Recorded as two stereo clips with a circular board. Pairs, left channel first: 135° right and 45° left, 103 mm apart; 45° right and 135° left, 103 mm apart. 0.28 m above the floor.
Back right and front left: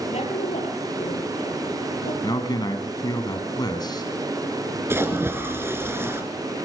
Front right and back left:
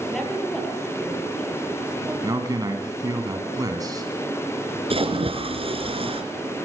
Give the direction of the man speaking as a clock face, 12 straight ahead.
6 o'clock.